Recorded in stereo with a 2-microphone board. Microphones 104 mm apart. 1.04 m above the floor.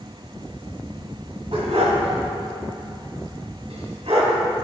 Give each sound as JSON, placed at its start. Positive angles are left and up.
{"t": 1.5, "sound": "a dog barking", "side_deg": -70, "distance_m": 2.5}